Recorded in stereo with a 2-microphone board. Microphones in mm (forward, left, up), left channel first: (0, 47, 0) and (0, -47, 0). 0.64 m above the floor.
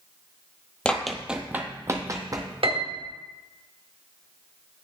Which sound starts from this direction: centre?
Running footsteps, at 0.8 s.